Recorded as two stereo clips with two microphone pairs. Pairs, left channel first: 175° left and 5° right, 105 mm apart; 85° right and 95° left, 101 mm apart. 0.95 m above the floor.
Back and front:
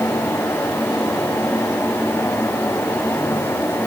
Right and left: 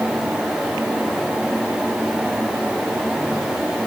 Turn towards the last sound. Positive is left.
No sound to turn to.